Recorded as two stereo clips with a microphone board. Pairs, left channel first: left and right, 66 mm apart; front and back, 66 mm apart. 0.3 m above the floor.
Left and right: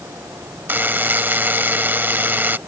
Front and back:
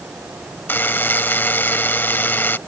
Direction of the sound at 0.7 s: 45° right.